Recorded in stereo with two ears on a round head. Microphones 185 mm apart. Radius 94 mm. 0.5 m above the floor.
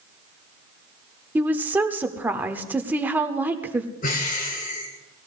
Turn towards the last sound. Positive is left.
turn(degrees=45)  # may be behind; listen again after turning